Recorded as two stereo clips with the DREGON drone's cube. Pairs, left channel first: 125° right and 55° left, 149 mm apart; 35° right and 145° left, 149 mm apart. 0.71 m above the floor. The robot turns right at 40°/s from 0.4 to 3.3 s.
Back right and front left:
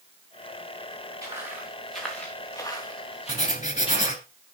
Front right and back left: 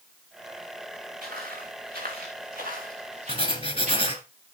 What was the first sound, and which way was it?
Footsteps, 125° left.